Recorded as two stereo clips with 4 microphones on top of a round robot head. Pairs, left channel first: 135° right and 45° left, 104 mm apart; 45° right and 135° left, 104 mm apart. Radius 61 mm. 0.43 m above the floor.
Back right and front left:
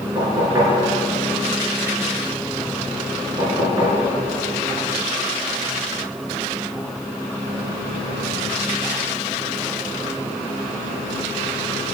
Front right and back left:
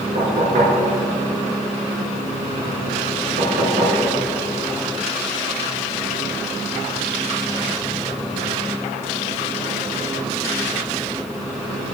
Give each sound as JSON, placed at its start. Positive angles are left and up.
{"t": 0.1, "sound": "knocking", "azimuth_deg": 110, "distance_m": 4.0}